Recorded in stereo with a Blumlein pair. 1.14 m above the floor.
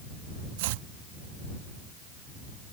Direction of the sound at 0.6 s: 50° right.